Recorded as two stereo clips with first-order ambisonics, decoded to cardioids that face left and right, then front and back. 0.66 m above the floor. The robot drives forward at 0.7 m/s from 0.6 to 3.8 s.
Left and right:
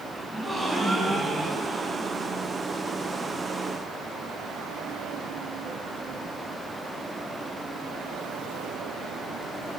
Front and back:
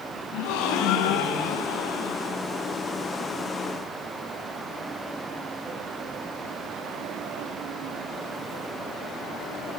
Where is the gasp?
10° right, 4.5 m; by 2.4 s 15° right, 3 m.